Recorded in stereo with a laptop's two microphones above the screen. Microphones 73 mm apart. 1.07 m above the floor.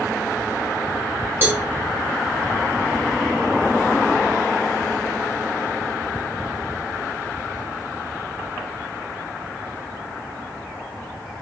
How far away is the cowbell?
About 0.8 m.